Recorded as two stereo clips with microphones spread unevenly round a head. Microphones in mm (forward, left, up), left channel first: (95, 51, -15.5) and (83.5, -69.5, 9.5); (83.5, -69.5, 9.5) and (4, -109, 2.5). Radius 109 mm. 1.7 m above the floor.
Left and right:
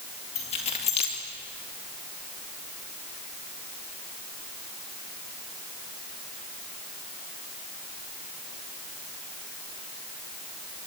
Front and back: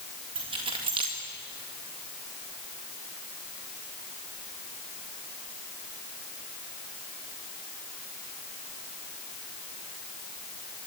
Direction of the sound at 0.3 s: 145° left.